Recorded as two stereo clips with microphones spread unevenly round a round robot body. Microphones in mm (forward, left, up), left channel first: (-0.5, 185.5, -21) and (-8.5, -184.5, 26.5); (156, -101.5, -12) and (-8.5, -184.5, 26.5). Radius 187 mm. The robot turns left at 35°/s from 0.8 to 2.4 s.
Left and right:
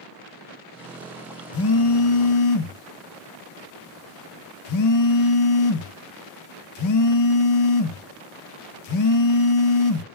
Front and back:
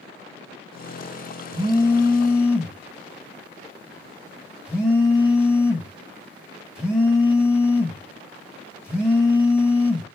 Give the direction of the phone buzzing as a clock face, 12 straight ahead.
8 o'clock.